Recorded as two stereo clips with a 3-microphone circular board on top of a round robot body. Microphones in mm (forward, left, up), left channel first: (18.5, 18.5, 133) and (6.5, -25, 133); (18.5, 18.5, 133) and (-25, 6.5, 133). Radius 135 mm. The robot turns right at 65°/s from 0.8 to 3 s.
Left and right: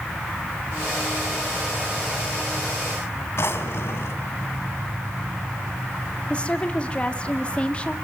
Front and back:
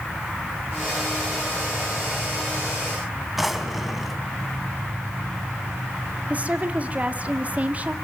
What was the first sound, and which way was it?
A drawer, 110° left.